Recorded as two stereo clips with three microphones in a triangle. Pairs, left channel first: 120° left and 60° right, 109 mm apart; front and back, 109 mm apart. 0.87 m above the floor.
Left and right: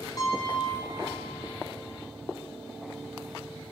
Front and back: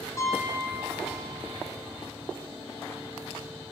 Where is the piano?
65° left, 6 m.